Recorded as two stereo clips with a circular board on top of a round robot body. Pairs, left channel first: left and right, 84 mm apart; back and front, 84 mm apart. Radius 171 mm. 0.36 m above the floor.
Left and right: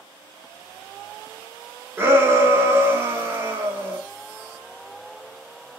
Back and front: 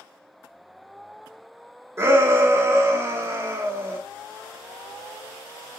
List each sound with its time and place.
2.0 s a shout: 40° right, 1.0 m